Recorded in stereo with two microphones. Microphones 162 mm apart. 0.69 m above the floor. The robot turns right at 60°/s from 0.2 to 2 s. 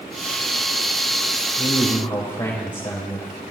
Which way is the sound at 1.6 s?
50° left (ahead or behind).